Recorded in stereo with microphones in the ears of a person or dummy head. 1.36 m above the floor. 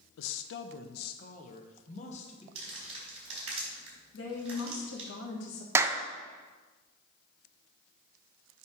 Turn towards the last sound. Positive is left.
turn(degrees=-15)  # may be behind; listen again after turning